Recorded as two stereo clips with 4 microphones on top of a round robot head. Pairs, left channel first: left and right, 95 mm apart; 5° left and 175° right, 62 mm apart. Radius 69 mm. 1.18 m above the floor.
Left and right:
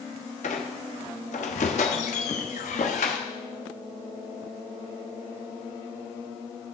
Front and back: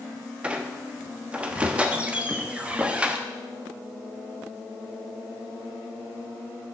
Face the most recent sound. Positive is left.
turn(degrees=115)